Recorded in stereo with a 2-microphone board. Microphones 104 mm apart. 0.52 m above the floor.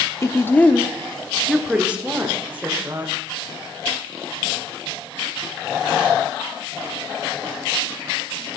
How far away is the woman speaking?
About 0.7 m.